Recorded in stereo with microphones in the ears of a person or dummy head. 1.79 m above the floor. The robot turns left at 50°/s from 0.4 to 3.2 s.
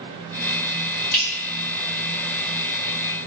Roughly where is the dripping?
Centre.